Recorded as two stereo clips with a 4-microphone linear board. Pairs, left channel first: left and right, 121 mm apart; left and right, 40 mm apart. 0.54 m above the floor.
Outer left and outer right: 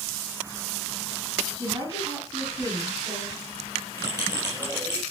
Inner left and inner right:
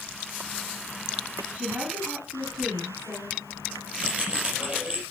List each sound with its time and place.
1.5 s a woman speaking: 40° right (ahead or behind), 3.5 m; by 3.4 s 25° right (ahead or behind), 4.5 m
4.0 s a bell: 35° right (ahead or behind), 6 m